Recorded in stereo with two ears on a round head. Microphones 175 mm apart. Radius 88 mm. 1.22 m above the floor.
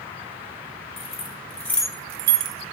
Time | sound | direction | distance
1.0 | keys jangling | 30° left (ahead or behind) | 1.5 m